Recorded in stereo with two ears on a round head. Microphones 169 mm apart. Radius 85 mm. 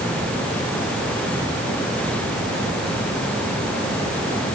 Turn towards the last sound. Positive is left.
No sound to turn to.